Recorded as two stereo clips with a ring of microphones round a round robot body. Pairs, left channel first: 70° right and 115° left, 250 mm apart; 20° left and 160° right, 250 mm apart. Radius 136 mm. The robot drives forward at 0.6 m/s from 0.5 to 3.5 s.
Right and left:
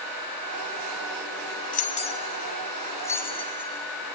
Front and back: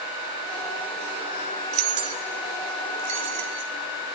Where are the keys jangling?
125° right, 1.3 m; by 3.7 s 150° right, 2 m.